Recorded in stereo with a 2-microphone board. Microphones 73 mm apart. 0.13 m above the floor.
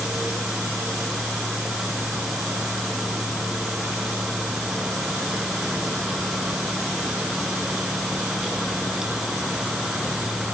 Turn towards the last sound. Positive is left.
No sound to turn to.